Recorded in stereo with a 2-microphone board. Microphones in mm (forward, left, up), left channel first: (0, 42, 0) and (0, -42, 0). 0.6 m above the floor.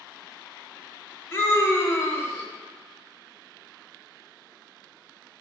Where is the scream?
30° left (ahead or behind), 1.6 m.